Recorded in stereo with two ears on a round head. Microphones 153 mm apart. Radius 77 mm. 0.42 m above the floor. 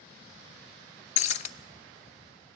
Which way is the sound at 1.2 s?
45° left (ahead or behind).